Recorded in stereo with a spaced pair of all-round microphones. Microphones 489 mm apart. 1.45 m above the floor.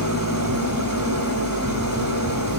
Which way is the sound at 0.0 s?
40° right (ahead or behind).